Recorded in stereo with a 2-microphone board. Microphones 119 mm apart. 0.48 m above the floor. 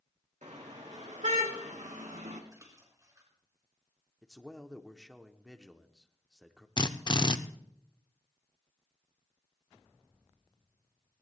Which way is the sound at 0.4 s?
80° right.